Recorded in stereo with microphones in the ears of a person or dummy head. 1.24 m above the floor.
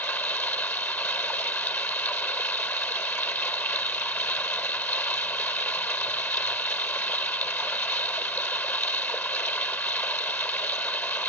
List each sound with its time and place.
0.0 s running water: 10° left (ahead or behind)